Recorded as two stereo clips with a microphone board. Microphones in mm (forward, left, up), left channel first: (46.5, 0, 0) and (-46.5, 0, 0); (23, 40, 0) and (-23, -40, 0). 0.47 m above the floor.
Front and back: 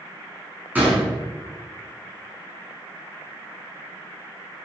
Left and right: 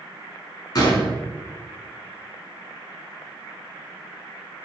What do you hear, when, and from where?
0.8 s a gunshot: 105° left, 2.5 m